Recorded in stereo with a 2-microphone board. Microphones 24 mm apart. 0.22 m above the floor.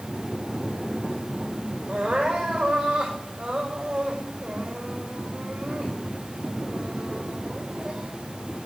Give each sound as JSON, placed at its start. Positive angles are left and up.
{"t": 1.9, "sound": "crying", "side_deg": -45, "distance_m": 6.0}